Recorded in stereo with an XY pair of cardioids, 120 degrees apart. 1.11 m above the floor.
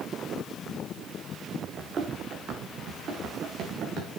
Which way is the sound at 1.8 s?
45° right.